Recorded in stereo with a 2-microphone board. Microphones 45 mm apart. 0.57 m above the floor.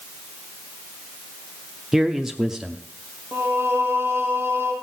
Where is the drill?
I don't hear a drill.